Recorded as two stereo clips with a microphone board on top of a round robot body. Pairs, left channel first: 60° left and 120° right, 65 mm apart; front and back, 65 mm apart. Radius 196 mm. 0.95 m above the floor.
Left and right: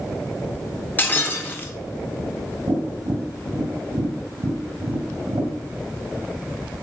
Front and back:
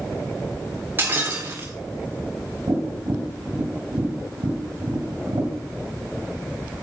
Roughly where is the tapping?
Behind right.